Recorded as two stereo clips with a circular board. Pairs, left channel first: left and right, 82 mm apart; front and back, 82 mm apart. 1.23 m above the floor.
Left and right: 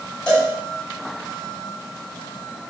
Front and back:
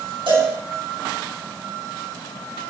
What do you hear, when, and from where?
0.3 s a cowbell: 165° left, 7.5 m